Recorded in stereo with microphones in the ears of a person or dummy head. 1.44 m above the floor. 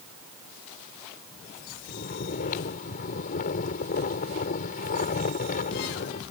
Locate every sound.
1.9 s snoring: 50° left (ahead or behind)